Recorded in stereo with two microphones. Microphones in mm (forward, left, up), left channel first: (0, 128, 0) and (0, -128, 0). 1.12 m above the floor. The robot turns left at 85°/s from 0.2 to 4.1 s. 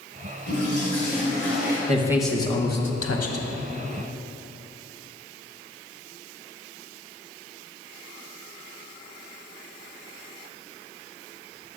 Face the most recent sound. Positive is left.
turn(degrees=20)